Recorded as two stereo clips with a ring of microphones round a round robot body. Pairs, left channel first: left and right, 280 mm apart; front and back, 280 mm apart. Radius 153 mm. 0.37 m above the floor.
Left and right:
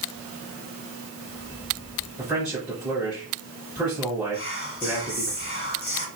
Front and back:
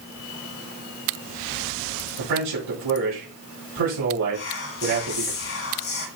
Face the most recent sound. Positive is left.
turn(degrees=40)